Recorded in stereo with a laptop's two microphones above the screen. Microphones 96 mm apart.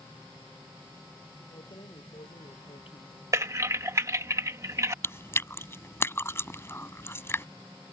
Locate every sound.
1.5 s keys jangling: 65° left (ahead or behind); by 3.1 s 70° left (ahead or behind)
3.3 s typing on a keyboard: 35° right (ahead or behind)
5.0 s chewing: 25° left (ahead or behind)